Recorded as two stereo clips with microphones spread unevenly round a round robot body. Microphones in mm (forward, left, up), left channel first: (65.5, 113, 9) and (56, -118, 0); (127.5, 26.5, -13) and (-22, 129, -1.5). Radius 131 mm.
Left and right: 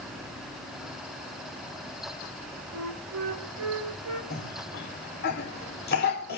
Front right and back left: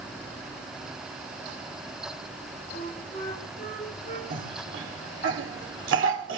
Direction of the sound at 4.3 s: 145° left.